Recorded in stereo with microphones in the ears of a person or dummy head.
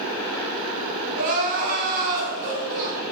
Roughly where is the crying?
Right.